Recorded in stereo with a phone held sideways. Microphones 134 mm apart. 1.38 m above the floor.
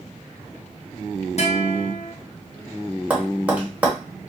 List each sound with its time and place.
1.4 s a guitar: 55° left (ahead or behind), 0.7 m
3.1 s tapping: 10° right (ahead or behind), 0.9 m